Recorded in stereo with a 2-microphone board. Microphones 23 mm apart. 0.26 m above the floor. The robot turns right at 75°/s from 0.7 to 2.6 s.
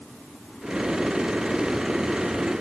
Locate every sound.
Only background noise.